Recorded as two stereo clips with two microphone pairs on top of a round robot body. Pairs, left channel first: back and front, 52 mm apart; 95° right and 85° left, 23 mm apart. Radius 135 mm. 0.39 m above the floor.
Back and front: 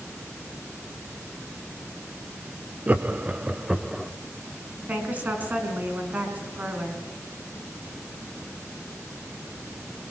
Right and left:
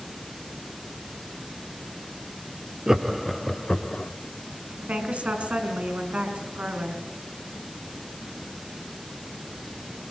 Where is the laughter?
35° left, 1.4 m; by 4.1 s 90° right, 1.4 m.